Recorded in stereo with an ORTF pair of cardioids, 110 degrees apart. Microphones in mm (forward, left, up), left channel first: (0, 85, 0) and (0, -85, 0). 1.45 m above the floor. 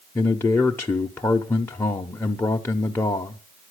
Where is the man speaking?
15° left, 0.8 m.